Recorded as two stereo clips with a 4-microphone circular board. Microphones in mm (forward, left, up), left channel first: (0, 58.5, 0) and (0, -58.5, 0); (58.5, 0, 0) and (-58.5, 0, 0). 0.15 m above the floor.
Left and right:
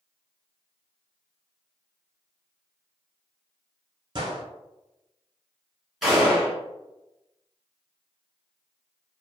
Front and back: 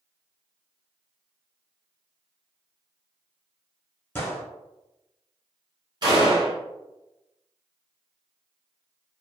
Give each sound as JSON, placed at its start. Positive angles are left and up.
{"t": 4.2, "sound": "a gunshot", "azimuth_deg": -65, "distance_m": 0.9}
{"t": 6.0, "sound": "a gunshot", "azimuth_deg": -175, "distance_m": 1.5}